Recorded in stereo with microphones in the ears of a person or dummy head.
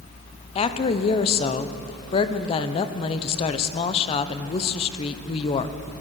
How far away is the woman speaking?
About 0.8 m.